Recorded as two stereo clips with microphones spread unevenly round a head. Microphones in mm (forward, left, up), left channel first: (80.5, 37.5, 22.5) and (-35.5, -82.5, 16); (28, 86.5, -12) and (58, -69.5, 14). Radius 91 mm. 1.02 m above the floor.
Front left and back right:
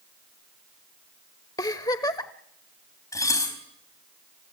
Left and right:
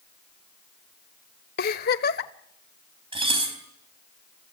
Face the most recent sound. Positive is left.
turn(degrees=-25)